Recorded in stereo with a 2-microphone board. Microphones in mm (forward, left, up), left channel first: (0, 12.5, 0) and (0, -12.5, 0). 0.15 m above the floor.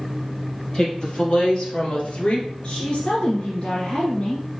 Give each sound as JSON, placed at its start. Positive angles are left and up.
{"t": 0.7, "sound": "a woman speaking", "side_deg": 35, "distance_m": 3.5}
{"t": 2.6, "sound": "a woman speaking", "side_deg": 40, "distance_m": 1.9}